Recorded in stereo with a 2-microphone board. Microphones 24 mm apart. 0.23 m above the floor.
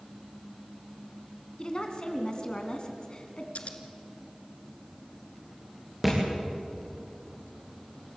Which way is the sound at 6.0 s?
5° right (ahead or behind).